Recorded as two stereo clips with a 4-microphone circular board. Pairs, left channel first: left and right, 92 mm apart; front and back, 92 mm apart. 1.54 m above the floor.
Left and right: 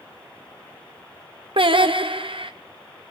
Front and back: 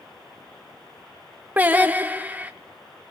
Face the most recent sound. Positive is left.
turn(degrees=-110)